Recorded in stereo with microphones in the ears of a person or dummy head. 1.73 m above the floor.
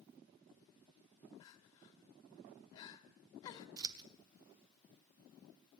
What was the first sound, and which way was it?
Crying, 25° left (ahead or behind).